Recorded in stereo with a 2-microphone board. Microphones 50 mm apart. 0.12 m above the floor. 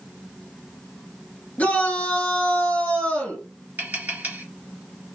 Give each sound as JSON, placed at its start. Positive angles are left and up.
{"t": 1.6, "sound": "a shout", "side_deg": 35, "distance_m": 1.6}
{"t": 3.8, "sound": "tapping", "side_deg": -35, "distance_m": 1.9}